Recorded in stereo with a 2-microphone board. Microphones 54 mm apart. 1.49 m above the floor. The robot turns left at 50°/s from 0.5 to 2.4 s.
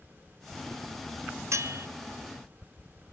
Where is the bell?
60° right (ahead or behind), 0.7 m; by 1.9 s 45° right (ahead or behind), 0.7 m.